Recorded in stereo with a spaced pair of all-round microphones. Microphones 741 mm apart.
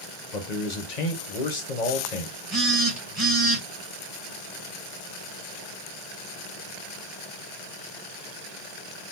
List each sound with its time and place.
0.3 s a man speaking: 65° left (ahead or behind), 1.1 m
2.5 s a phone buzzing: 30° right (ahead or behind), 2.5 m